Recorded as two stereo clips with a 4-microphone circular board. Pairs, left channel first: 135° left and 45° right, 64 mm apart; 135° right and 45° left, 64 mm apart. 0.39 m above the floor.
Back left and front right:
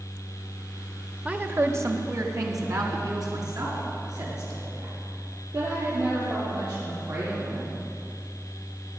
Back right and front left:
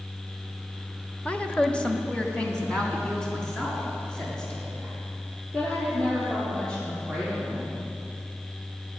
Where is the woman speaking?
90° right, 0.8 m; by 7.8 s 55° right, 10.5 m.